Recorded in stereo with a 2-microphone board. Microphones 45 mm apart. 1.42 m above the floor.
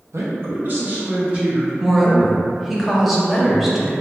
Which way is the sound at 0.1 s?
70° right (ahead or behind).